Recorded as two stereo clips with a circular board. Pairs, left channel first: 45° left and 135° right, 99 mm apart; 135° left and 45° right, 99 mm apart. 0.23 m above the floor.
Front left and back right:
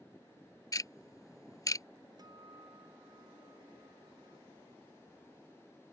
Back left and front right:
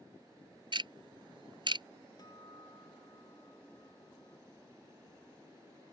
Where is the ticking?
10° right.